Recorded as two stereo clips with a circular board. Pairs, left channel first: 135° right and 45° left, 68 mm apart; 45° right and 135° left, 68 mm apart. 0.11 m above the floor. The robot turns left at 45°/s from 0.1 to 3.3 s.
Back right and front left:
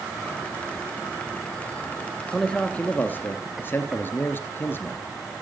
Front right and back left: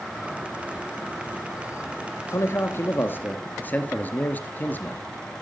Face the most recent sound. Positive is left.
turn(degrees=-95)